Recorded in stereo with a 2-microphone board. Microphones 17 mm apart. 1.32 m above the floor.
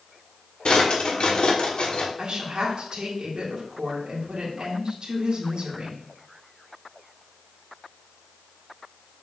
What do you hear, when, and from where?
0.7 s a drawer: 60° left (ahead or behind), 1.4 m
2.2 s a woman speaking: 50° right (ahead or behind), 2.5 m